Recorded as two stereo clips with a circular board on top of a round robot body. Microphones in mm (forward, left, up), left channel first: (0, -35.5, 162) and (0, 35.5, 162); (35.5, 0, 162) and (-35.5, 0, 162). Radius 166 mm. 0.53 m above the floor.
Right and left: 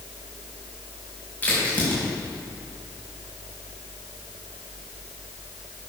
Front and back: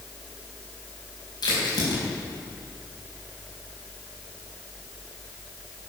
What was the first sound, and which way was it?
A crack, 25° right.